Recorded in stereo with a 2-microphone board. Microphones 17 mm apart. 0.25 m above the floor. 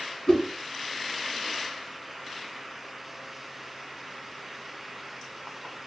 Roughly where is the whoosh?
Left.